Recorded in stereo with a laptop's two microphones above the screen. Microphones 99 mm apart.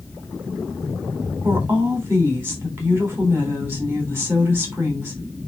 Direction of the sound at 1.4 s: 25° right (ahead or behind).